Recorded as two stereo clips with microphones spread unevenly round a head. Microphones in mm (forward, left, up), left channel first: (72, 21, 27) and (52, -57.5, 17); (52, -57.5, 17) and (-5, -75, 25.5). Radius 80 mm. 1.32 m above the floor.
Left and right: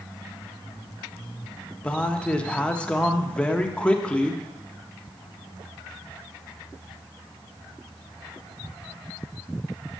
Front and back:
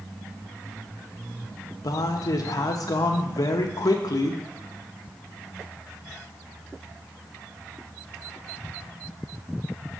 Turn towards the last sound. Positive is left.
turn(degrees=0)